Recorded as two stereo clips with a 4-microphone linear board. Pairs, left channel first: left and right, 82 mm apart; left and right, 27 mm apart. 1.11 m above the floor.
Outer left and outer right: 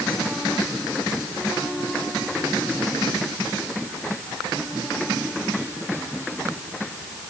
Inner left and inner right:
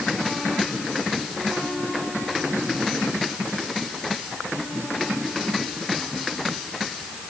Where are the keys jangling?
I don't hear keys jangling.